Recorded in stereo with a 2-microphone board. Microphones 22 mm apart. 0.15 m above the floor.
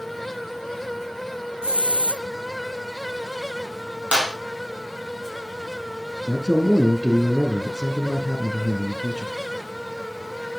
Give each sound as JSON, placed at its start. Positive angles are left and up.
{"t": 1.6, "sound": "a hiss", "side_deg": -50, "distance_m": 1.0}
{"t": 4.1, "sound": "a clap", "side_deg": -55, "distance_m": 3.5}
{"t": 6.3, "sound": "a man speaking", "side_deg": 30, "distance_m": 1.4}